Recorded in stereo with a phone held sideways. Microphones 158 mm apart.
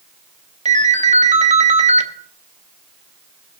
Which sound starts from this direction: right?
A ringtone, at 0.7 s.